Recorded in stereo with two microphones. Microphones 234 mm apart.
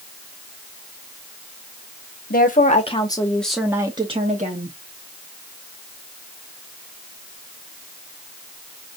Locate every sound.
2.3 s a woman speaking: 40° left (ahead or behind), 1.1 m; by 4.8 s 40° right (ahead or behind), 1.1 m